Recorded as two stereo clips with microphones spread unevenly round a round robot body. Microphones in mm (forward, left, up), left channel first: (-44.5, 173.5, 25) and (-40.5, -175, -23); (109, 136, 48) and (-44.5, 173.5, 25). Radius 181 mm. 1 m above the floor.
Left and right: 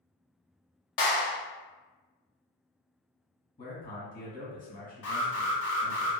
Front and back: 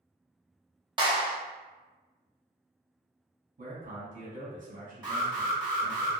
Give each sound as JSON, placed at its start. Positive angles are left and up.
{"t": 1.0, "sound": "a clap", "azimuth_deg": 110, "distance_m": 1.3}
{"t": 3.6, "sound": "a man speaking", "azimuth_deg": 160, "distance_m": 1.5}
{"t": 5.0, "sound": "an alarm", "azimuth_deg": 125, "distance_m": 1.8}